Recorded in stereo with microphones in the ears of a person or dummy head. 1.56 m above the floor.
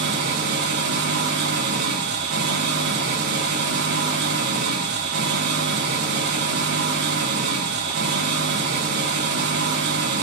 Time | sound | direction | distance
0.0 | an engine running | 55° right (ahead or behind) | 1.3 m